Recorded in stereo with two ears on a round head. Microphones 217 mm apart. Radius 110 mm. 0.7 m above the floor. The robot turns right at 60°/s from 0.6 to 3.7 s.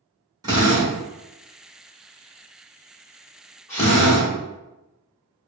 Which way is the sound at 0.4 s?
15° right (ahead or behind).